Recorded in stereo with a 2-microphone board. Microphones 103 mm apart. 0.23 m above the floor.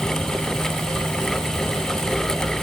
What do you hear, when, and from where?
Only background noise.